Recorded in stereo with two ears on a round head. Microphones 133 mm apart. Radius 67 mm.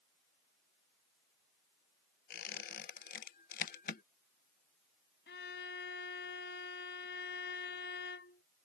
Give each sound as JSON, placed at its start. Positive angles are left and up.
{"t": 2.3, "sound": "a squeak", "side_deg": 60}
{"t": 5.3, "sound": "a violin", "side_deg": 85}